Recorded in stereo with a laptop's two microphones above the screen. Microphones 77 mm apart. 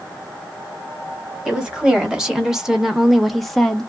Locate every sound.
1.4 s a woman speaking: 10° right (ahead or behind), 1.2 m; by 3.9 s 5° left (ahead or behind), 0.6 m